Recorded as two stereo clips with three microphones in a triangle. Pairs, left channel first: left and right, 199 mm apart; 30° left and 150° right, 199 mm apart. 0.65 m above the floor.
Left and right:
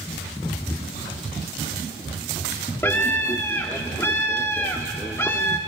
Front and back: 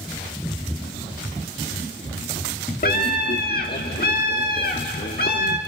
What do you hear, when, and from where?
2.8 s a scream: 15° left, 1.3 m